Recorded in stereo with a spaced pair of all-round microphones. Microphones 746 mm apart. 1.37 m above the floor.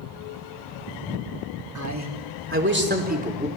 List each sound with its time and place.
1.8 s a man speaking: 25° right (ahead or behind), 3.5 m; by 3.5 s 10° right (ahead or behind), 4 m